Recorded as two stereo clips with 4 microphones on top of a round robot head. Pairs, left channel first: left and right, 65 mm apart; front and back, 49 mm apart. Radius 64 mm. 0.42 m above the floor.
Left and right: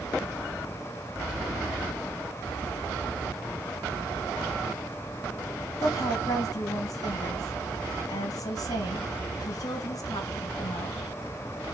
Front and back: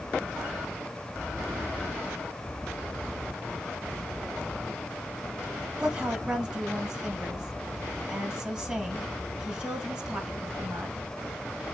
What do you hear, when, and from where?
5.8 s a woman speaking: 110° left, 2.5 m